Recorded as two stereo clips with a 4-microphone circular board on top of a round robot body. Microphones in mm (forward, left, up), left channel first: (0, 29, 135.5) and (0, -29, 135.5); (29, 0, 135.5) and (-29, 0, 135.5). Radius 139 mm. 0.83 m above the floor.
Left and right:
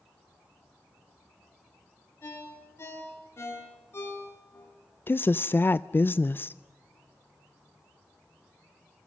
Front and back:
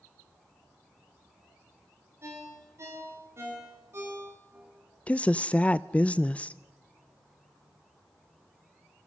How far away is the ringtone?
About 5.5 m.